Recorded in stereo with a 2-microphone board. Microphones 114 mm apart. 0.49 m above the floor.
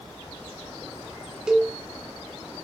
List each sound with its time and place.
1.5 s a cowbell: 5° right (ahead or behind), 2 m